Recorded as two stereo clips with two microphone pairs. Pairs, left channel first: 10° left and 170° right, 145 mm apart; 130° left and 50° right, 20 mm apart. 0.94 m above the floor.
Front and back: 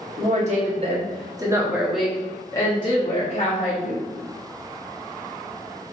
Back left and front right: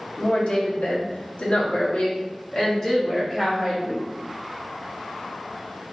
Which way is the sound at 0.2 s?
160° left.